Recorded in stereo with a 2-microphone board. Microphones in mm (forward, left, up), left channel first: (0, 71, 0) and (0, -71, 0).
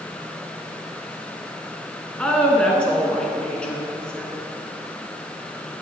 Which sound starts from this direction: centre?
A woman speaking, at 2.2 s.